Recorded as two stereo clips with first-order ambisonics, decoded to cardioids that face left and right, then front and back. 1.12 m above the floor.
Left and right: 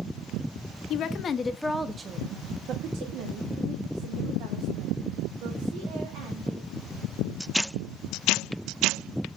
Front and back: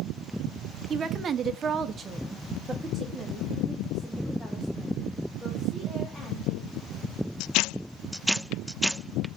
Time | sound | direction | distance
0.9 | a woman speaking | 120° left | 0.7 m